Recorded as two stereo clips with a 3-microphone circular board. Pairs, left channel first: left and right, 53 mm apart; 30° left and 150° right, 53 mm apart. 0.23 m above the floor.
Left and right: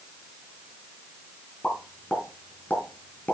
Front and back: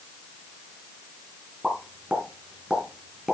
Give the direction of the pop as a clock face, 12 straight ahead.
7 o'clock.